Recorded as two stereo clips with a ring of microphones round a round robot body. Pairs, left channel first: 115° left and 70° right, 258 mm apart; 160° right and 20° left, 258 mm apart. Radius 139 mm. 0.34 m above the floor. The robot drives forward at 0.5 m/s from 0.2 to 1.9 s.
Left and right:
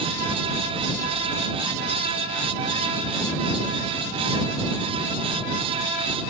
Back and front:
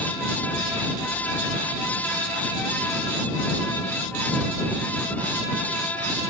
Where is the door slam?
I don't hear a door slam.